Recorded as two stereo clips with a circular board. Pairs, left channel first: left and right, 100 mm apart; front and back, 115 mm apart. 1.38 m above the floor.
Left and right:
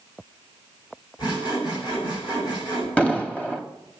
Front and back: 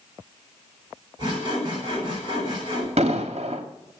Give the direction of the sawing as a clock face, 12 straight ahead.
8 o'clock.